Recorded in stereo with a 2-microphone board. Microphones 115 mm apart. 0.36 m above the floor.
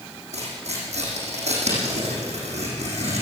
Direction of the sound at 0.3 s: 70° right (ahead or behind).